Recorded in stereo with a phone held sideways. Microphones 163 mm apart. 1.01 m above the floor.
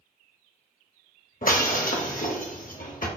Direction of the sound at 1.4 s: 60° left (ahead or behind).